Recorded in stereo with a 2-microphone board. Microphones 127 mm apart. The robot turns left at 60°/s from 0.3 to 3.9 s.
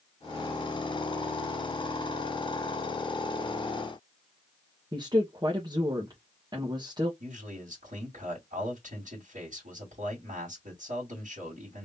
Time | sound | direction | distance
4.9 | a woman speaking | 35° right (ahead or behind) | 1.2 m
7.2 | a man speaking | 80° right | 2 m